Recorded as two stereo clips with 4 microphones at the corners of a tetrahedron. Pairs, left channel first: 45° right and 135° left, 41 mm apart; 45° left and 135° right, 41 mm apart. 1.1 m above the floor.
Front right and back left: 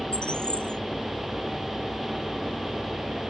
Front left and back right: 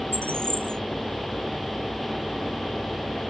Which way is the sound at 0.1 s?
115° right.